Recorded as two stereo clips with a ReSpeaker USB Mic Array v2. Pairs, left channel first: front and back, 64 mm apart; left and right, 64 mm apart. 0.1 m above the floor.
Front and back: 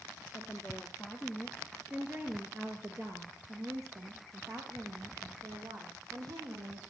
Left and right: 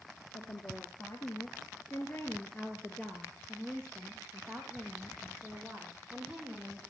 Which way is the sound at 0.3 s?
75° left.